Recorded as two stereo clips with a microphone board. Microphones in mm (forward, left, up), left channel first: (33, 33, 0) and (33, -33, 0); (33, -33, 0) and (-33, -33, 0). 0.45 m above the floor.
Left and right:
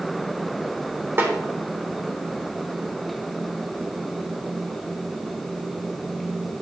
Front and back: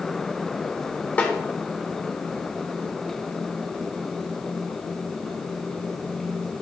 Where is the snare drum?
55° right, 1.5 m.